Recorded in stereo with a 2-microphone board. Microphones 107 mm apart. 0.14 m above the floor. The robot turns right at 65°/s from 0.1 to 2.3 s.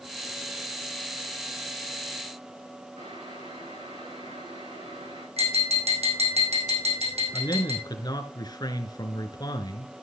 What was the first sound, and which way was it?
Boiling, 80° right.